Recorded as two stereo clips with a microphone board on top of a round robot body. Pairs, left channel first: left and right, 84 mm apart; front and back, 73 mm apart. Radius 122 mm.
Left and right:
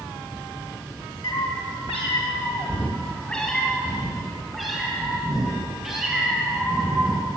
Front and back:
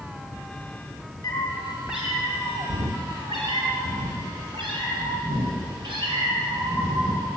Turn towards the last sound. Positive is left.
turn(degrees=-170)